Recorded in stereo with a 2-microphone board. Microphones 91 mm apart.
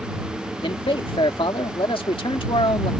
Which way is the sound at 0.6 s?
65° left (ahead or behind).